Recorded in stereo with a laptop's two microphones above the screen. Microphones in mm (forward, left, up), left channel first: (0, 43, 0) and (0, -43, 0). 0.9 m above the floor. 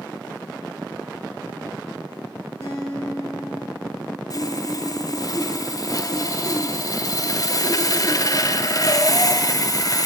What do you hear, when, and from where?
2.6 s a guitar: 30° left (ahead or behind), 6 m
4.3 s sawing: 45° left (ahead or behind), 0.5 m